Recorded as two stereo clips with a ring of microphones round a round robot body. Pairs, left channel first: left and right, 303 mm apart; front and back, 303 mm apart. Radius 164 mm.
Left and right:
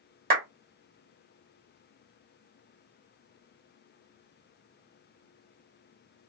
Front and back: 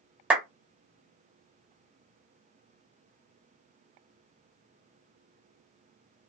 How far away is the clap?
About 1.0 m.